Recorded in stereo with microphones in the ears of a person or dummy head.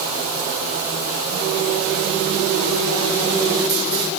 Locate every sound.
Only background noise.